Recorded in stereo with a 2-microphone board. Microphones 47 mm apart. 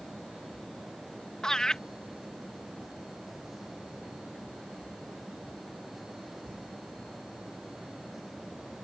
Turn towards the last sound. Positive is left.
turn(degrees=15)  # may be behind; listen again after turning